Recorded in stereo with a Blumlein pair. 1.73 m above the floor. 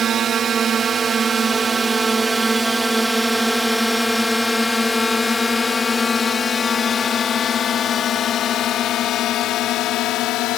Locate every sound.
0.0 s a drone: 25° right; by 10.6 s 40° left